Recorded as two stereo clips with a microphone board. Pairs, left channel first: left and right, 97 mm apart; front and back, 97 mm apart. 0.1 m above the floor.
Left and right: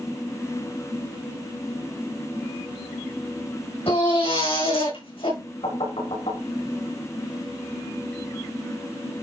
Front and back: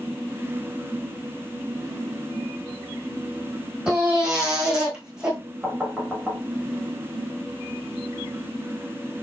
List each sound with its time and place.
3.9 s a baby crying: 100° left, 5.5 m
5.6 s knocking: 95° left, 5 m